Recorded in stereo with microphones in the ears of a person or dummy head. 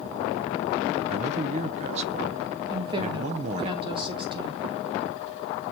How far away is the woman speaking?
About 1.9 m.